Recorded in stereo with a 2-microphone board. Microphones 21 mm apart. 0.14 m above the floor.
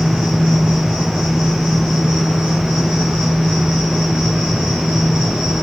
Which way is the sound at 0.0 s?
70° right (ahead or behind).